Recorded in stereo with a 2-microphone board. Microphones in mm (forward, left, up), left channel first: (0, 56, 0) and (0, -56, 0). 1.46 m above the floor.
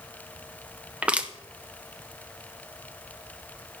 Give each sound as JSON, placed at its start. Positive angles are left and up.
{"t": 1.0, "sound": "crushing", "side_deg": -10, "distance_m": 0.8}